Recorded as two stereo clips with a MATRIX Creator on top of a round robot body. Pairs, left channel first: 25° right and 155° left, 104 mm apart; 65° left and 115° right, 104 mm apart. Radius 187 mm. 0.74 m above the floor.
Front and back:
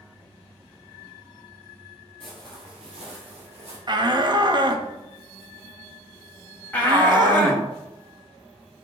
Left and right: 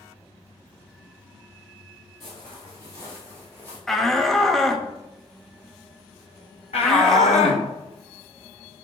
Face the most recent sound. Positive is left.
turn(degrees=50)